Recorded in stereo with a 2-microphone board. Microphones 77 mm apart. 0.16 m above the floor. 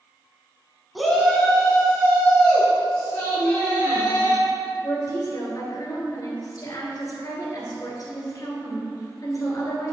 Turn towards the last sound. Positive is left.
turn(degrees=50)  # may be behind; listen again after turning